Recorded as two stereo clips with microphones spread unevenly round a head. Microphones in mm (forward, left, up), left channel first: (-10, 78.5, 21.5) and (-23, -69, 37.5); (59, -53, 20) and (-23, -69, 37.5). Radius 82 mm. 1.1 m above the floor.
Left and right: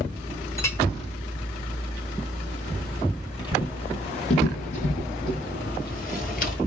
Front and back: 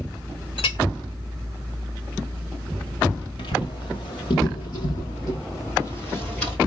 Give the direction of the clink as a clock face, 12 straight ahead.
12 o'clock.